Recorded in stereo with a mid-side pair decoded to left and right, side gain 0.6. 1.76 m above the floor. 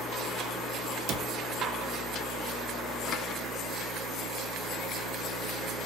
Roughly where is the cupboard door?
Ahead right.